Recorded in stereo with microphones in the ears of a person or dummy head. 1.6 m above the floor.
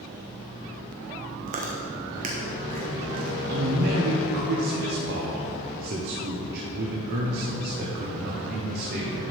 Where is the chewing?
40° right (ahead or behind), 1.2 m.